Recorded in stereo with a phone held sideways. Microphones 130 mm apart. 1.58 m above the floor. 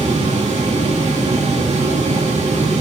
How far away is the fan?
About 2 m.